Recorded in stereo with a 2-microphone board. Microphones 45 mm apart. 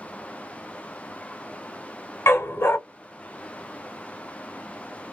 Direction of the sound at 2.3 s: 70° left (ahead or behind).